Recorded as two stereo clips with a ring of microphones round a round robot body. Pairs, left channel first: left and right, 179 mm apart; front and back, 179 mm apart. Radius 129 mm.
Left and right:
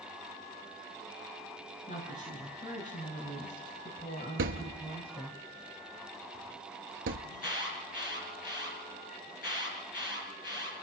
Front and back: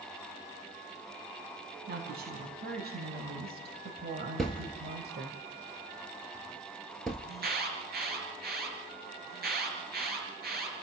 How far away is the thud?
About 1.3 m.